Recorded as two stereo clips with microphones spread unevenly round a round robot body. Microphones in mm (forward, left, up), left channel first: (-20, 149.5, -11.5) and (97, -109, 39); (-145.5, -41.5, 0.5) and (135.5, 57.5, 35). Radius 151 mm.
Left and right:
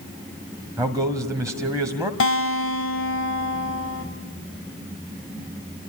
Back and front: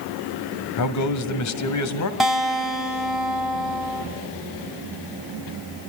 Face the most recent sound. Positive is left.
turn(degrees=115)